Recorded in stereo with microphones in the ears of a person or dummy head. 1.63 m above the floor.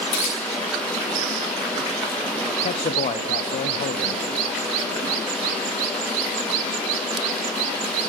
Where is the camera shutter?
35° left (ahead or behind), 2.5 m.